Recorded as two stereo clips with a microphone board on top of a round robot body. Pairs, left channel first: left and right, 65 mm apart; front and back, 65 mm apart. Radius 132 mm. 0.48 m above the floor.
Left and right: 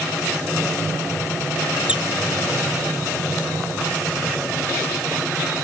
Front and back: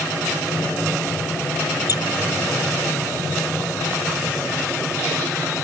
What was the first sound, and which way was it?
A squeak, 15° right.